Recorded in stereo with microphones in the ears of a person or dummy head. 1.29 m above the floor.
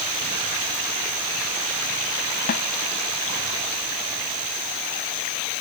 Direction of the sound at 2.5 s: 50° left (ahead or behind).